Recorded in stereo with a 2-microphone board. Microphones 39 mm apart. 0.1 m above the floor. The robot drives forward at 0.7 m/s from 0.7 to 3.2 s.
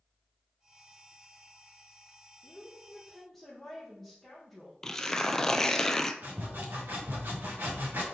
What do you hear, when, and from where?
2.4 s a woman speaking: centre (ahead or behind), 2.0 m
4.8 s tearing paper: 15° left (ahead or behind), 0.6 m
6.2 s sawing: 65° right (ahead or behind), 2.5 m